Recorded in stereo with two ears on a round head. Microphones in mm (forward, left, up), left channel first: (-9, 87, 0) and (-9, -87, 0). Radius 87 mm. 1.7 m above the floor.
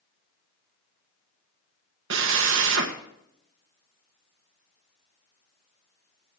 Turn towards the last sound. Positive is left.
turn(degrees=-70)  # may be behind; listen again after turning